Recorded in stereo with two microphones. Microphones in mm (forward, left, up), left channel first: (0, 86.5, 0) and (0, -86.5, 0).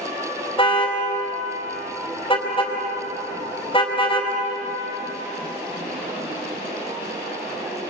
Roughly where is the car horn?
Left.